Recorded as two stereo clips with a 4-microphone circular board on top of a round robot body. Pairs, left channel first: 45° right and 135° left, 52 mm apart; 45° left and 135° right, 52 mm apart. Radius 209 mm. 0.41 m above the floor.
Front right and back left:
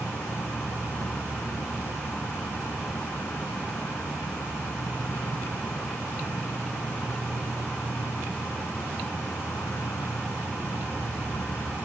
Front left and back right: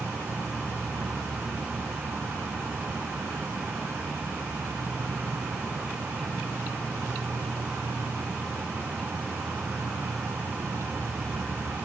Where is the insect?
80° right.